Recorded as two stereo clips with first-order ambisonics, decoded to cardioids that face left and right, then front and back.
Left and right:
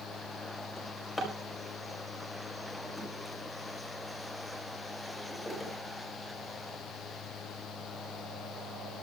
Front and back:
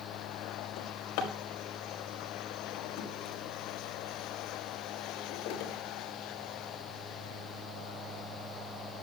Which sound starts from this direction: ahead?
A drawer, at 0.8 s.